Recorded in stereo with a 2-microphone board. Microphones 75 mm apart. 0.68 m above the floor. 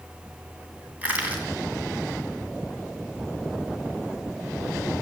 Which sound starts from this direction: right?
Crushing, at 1.0 s.